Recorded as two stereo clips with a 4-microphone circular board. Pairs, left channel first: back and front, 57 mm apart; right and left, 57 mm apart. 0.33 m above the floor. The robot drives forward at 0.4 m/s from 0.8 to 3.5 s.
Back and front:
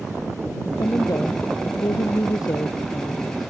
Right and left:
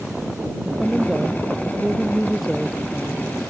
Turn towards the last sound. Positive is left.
turn(degrees=180)